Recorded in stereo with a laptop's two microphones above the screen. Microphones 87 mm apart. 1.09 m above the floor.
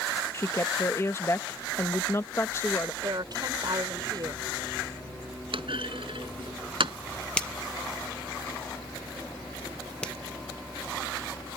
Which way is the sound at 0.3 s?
30° left (ahead or behind).